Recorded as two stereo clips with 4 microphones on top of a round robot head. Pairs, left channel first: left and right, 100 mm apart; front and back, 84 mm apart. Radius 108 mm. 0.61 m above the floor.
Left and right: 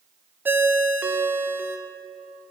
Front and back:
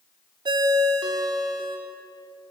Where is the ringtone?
160° right, 1.1 m.